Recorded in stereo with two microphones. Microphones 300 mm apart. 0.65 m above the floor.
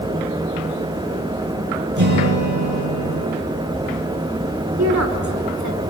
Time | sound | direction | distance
2.0 | a guitar | 80° right | 5 m
4.8 | a woman speaking | 65° right (ahead or behind) | 2.5 m